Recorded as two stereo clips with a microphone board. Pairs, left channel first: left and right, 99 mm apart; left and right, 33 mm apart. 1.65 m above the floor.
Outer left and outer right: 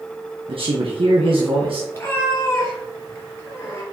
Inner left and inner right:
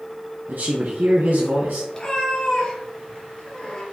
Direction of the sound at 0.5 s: 65° right (ahead or behind).